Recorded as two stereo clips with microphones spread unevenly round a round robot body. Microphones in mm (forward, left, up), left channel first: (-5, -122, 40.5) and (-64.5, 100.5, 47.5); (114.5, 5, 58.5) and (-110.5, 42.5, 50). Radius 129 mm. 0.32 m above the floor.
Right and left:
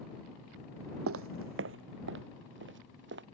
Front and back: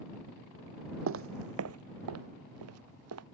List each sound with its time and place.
1.1 s footsteps: 135° left; by 3.2 s 150° left